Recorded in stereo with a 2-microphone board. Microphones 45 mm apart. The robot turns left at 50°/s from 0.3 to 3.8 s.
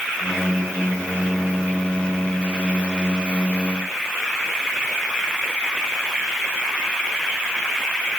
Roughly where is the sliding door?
No sliding door in this recording.